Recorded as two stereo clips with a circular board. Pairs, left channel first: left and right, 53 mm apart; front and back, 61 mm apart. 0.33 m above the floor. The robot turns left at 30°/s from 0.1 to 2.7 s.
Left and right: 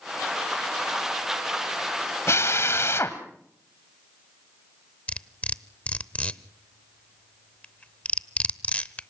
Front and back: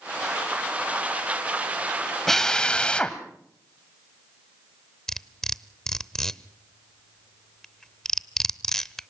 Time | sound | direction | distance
2.3 | a drill | 85° left | 1.6 m
5.1 | cutlery clinking | 70° left | 0.6 m